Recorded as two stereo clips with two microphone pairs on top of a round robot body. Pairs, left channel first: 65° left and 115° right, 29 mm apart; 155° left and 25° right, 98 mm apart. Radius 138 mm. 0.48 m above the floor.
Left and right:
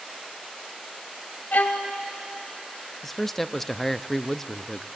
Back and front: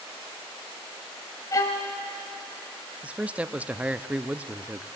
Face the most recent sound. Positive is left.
turn(degrees=20)